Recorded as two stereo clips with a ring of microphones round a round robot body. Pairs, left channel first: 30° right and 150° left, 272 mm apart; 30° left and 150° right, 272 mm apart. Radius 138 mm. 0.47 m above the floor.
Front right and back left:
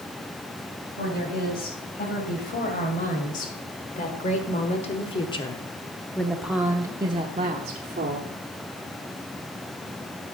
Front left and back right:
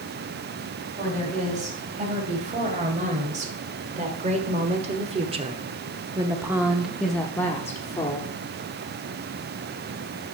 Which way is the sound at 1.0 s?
85° right.